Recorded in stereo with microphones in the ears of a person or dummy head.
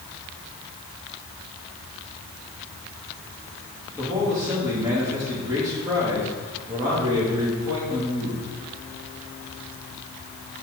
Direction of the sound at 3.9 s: 20° right (ahead or behind).